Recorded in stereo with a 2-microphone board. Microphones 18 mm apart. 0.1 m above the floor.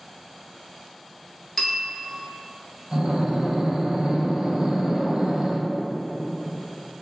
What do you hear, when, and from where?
1.6 s a bell: 5° left (ahead or behind), 0.9 m
2.9 s breathing: 40° right (ahead or behind), 0.8 m